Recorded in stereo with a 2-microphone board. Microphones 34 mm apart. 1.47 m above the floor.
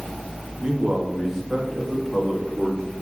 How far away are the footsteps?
No footsteps in this recording.